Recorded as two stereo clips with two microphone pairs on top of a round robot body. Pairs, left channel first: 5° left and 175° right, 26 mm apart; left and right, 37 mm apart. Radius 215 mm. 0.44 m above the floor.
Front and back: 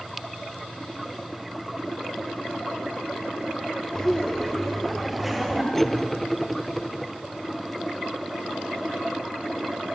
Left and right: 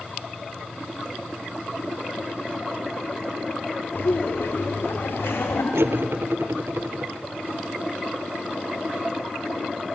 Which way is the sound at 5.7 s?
85° right.